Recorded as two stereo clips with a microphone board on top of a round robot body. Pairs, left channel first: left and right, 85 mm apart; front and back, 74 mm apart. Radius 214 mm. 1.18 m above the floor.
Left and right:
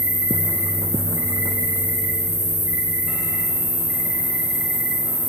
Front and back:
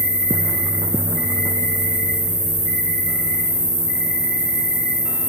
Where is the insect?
75° right, 3 m.